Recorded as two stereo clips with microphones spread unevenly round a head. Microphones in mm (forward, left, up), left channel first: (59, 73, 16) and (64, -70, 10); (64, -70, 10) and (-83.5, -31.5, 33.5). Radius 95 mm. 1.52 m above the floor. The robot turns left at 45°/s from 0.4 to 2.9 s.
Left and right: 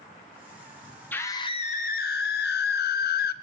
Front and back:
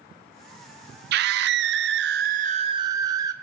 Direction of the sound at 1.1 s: 175° left.